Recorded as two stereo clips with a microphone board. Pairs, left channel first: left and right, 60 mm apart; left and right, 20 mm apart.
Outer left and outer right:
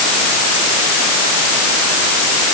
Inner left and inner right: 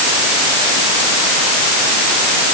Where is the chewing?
I don't hear chewing.